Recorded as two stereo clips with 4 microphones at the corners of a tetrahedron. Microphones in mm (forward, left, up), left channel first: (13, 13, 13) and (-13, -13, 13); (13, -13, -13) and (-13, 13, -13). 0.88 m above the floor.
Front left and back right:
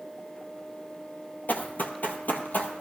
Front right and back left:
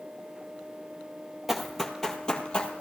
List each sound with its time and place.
1.5 s running footsteps: 55° left, 1.3 m; by 2.8 s 10° left, 1.6 m